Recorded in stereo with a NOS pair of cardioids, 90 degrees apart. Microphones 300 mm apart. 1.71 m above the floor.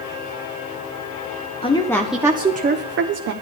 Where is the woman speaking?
20° left, 1.5 m; by 3.3 s 60° right, 1.5 m.